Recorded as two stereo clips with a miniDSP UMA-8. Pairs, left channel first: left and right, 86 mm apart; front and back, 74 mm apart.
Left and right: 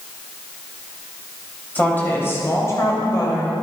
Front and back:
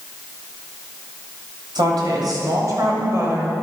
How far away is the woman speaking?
About 3.5 m.